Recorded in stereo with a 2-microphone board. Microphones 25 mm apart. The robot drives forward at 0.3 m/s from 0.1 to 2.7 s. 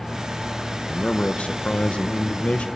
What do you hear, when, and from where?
0.9 s a man speaking: 50° left (ahead or behind), 1.2 m; by 2.7 s 70° left (ahead or behind), 1.0 m